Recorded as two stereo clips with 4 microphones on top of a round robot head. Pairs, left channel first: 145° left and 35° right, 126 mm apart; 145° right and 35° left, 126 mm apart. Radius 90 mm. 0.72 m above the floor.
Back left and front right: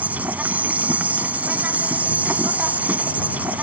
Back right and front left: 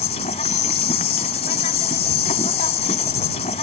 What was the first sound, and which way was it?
An insect, 110° right.